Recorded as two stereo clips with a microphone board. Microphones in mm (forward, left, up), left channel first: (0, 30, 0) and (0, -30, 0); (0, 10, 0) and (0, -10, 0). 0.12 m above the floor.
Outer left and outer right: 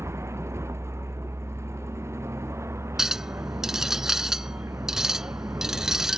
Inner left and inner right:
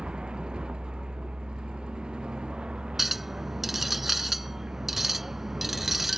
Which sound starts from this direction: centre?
A clink, at 3.0 s.